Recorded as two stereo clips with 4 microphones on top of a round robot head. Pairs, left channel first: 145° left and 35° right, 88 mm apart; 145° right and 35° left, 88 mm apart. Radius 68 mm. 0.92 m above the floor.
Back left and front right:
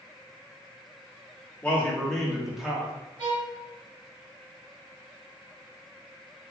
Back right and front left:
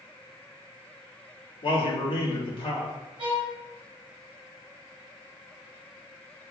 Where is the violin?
Straight ahead, 1.8 m.